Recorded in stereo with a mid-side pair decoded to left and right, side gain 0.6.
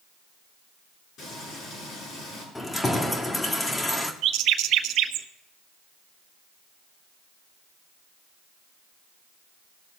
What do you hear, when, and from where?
1.2 s frying: 55° left, 7 m
2.5 s keys jangling: 20° left, 1.8 m
4.2 s a bird: 65° right, 1.0 m